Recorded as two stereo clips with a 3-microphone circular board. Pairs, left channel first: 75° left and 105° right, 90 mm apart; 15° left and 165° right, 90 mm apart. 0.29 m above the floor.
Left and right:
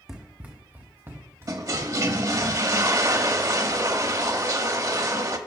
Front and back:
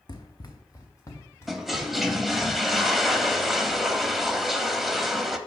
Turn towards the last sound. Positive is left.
turn(degrees=-80)